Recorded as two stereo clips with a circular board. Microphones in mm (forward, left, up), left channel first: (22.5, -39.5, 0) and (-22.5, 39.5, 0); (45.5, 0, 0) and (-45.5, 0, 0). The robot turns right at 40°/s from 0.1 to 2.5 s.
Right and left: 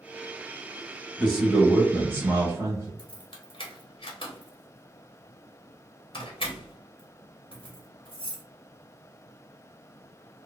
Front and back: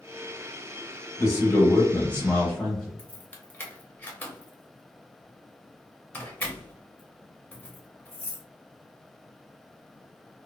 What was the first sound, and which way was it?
A man speaking, 30° left.